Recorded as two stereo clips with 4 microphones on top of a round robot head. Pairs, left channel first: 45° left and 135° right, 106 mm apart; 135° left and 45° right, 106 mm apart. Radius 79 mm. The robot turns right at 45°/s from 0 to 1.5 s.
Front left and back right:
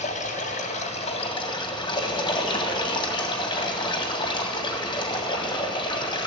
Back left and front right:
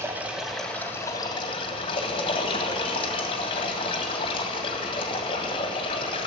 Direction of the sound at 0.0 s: 25° left.